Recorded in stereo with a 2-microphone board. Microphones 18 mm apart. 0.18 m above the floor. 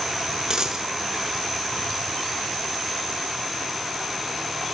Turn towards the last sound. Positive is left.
turn(degrees=-50)  # may be behind; listen again after turning